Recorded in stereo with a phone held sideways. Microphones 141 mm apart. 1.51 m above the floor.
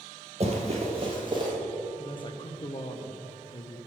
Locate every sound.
0.4 s running footsteps: 45° right (ahead or behind), 2 m; by 1.5 s 30° right (ahead or behind), 2.5 m
2.0 s a man speaking: 35° left (ahead or behind), 0.9 m